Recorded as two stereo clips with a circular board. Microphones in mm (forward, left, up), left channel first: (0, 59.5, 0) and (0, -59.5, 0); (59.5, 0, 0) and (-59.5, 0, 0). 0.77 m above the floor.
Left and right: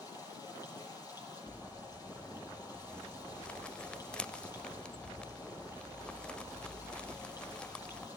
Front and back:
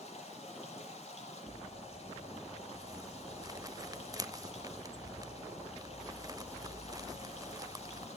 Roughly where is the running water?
Ahead left.